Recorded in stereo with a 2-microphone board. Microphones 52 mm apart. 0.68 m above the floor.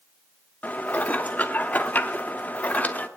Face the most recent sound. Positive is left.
turn(degrees=35)  # may be behind; listen again after turning